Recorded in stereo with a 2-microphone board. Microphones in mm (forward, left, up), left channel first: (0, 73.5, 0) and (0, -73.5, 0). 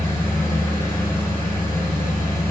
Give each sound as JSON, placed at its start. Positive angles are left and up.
{"t": 0.0, "sound": "an engine running", "side_deg": 20, "distance_m": 3.0}